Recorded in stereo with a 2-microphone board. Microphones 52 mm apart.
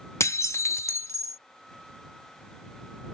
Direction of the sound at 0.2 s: 70° left (ahead or behind).